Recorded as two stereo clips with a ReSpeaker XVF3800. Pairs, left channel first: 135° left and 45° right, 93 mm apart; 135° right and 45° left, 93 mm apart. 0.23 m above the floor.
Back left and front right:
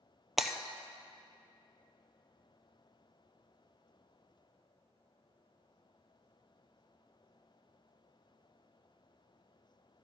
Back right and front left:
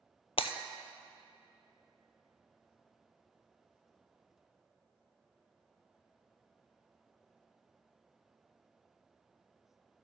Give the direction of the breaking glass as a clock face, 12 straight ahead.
4 o'clock.